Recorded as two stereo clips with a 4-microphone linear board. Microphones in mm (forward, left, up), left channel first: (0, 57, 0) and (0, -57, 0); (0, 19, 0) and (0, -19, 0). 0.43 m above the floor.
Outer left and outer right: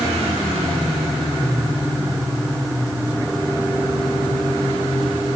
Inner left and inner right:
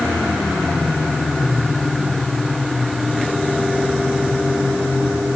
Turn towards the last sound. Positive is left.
No sound to turn to.